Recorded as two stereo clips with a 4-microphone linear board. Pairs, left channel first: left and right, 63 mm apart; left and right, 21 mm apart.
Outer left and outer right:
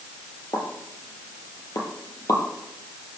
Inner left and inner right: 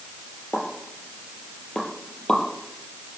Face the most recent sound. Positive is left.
turn(degrees=70)  # may be behind; listen again after turning